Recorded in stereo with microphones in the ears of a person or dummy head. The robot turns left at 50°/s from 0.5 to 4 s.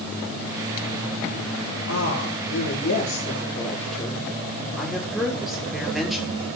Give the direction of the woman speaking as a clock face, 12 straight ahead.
8 o'clock.